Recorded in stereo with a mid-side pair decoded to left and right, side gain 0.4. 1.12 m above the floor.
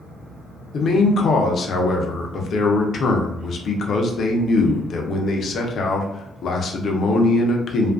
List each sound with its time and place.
0.7 s a man speaking: 60° left, 0.6 m